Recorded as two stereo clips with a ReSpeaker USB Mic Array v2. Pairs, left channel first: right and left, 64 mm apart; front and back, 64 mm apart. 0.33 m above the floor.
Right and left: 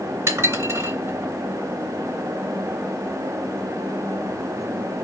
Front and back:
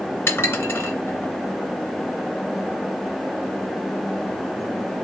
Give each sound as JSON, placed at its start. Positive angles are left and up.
{"t": 0.3, "sound": "dishes clattering", "azimuth_deg": 50, "distance_m": 2.5}